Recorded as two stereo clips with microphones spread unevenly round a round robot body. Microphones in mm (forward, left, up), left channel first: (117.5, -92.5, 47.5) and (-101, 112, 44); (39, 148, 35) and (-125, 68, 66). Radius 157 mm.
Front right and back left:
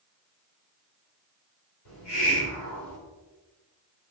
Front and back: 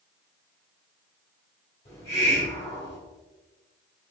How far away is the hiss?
About 1.8 m.